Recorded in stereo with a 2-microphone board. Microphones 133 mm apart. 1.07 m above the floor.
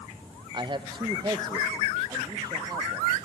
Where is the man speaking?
35° right (ahead or behind), 0.7 m; by 3.2 s 30° right (ahead or behind), 2 m.